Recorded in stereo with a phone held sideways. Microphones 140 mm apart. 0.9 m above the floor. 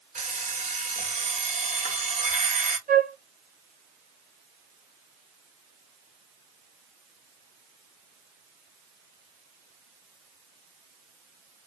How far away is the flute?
About 1.1 m.